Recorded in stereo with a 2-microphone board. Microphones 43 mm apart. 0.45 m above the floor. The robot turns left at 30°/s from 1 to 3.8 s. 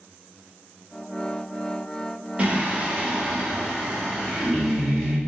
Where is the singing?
130° right, 1.2 m; by 5.2 s 175° right, 1.2 m.